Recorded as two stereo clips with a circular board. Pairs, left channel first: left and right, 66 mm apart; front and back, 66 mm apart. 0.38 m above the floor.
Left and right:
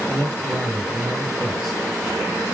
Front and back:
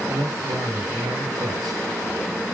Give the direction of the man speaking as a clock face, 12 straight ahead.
6 o'clock.